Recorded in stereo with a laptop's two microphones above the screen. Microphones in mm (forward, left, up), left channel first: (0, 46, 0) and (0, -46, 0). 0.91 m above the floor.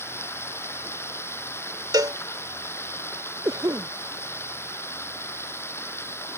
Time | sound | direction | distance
0.0 | running water | 25° left (ahead or behind) | ?
1.9 | a cowbell | 45° right (ahead or behind) | ?
3.5 | a cough | 40° right (ahead or behind) | ?